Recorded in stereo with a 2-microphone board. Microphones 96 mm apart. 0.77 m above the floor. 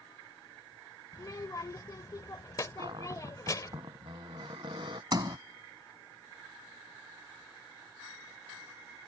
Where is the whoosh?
I don't hear a whoosh.